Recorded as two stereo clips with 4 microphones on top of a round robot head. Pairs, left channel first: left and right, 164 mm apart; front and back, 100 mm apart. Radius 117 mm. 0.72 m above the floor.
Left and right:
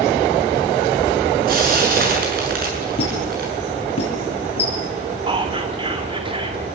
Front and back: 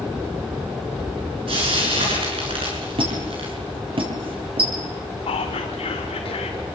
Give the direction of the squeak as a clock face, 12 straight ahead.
7 o'clock.